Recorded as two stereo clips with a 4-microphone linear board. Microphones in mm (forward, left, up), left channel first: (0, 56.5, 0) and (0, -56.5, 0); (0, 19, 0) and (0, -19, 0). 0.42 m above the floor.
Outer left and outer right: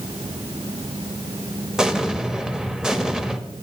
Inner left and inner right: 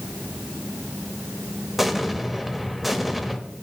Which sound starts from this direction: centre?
An explosion, at 1.8 s.